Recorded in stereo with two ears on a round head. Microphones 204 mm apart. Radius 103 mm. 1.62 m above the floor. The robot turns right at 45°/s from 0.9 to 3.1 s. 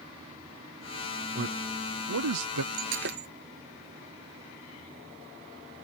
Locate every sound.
1.4 s a man speaking: 45° right (ahead or behind); by 2.6 s 75° right (ahead or behind)
2.7 s breaking glass: 65° right (ahead or behind); by 3.3 s 45° right (ahead or behind)